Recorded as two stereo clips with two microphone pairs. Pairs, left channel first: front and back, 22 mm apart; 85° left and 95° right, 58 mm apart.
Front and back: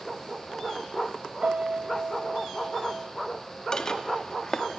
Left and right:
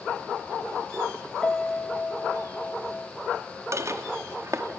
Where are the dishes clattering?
60° right, 1.6 m.